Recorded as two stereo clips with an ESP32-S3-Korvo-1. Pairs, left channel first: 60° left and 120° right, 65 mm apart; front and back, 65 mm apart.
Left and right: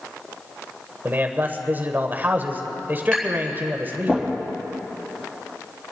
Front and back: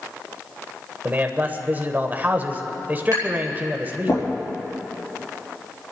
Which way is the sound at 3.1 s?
20° right.